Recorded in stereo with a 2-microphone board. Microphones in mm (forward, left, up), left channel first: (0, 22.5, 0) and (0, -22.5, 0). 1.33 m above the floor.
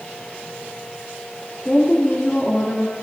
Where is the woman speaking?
15° left (ahead or behind), 2.5 m.